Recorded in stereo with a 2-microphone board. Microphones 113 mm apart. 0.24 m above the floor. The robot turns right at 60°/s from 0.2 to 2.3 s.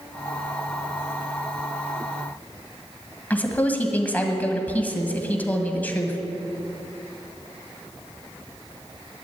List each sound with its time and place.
3.3 s a woman speaking: 15° left (ahead or behind), 1.4 m